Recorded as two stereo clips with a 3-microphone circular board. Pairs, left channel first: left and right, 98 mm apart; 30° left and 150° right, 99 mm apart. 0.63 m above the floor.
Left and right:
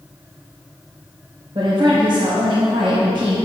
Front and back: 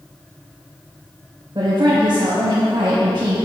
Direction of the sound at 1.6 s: 110° right.